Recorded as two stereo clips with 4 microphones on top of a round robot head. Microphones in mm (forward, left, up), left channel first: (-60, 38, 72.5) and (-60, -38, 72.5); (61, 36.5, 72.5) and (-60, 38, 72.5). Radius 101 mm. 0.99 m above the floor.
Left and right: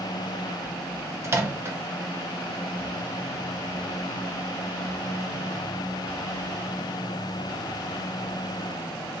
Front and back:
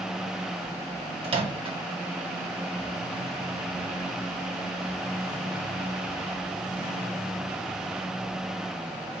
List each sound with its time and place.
1.2 s a microwave: 145° right, 0.9 m